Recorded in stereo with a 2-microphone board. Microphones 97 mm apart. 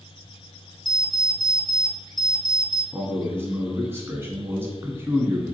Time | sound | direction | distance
0.8 | an alarm clock | 5° left (ahead or behind) | 0.7 m
2.9 | a man speaking | 20° right (ahead or behind) | 1.3 m